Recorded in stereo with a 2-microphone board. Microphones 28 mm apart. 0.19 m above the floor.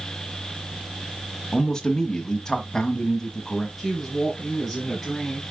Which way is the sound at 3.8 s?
5° left (ahead or behind).